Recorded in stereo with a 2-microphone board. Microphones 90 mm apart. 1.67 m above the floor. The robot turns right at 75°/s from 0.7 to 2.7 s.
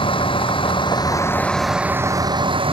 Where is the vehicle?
110° left; by 2.7 s 100° right.